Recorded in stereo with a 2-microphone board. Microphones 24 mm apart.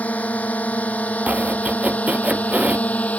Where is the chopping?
80° right.